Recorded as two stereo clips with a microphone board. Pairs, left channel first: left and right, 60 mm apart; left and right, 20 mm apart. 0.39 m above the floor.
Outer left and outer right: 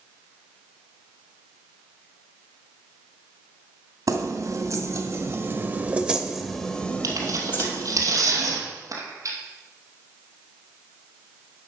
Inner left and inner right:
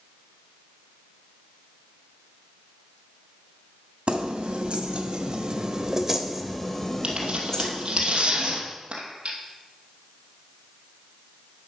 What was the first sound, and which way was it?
Keys jangling, 70° right (ahead or behind).